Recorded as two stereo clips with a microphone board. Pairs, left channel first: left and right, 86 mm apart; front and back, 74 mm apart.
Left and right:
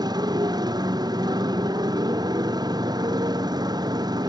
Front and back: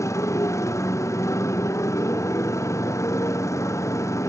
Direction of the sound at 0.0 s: 50° right.